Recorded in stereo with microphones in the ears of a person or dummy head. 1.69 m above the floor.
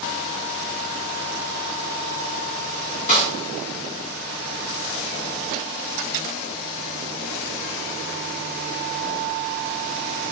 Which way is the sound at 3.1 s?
40° left (ahead or behind).